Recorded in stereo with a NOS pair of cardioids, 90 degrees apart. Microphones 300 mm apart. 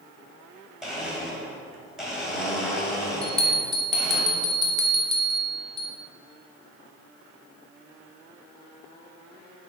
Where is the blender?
Straight ahead, 2 m.